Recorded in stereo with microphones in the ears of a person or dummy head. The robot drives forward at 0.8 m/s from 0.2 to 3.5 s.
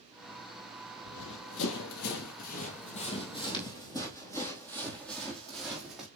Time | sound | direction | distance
1.0 | running footsteps | 65° left (ahead or behind) | 2.5 m